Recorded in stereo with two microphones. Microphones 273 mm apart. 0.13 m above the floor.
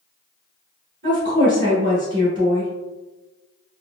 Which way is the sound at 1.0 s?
40° right (ahead or behind).